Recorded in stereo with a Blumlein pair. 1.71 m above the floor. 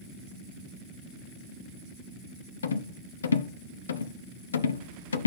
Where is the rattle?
65° left, 0.7 m.